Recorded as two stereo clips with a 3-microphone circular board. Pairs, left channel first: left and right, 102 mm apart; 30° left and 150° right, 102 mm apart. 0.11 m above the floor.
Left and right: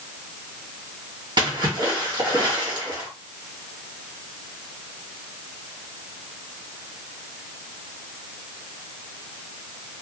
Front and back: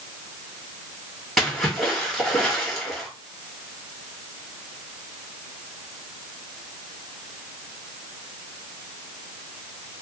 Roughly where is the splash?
Ahead right.